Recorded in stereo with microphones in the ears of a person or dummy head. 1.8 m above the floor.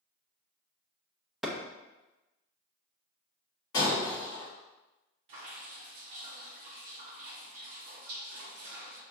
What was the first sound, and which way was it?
A clap, 5° right (ahead or behind).